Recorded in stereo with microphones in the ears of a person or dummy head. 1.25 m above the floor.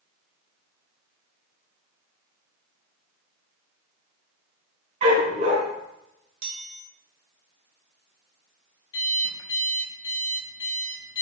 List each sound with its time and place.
5.0 s a dog barking: 45° right (ahead or behind), 3.5 m
6.4 s a chime: 60° right (ahead or behind), 1.1 m
8.9 s an alarm clock: 25° left (ahead or behind), 1.1 m